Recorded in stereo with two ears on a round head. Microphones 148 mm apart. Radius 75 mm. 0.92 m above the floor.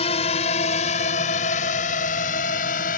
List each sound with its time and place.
0.0 s a drone: 40° left (ahead or behind); by 3.0 s 55° left (ahead or behind)